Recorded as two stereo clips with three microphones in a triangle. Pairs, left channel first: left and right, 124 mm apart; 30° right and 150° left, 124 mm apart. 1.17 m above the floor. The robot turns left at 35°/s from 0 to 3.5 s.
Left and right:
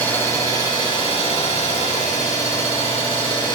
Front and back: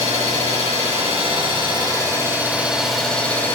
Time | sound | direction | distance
0.0 | an engine running | 165° left | 4 m